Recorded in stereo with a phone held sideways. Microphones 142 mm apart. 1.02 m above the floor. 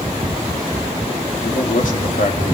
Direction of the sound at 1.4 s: 65° left (ahead or behind).